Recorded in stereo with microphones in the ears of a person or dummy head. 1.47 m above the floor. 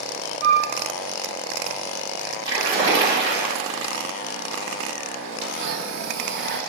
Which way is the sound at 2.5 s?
30° right (ahead or behind).